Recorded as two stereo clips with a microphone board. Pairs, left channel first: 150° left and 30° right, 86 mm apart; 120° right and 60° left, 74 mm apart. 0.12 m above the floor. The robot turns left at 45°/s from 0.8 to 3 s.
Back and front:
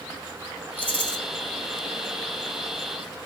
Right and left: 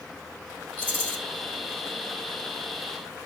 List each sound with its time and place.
0.8 s a rattle: 100° left, 1.5 m; by 1.2 s 85° left, 1.5 m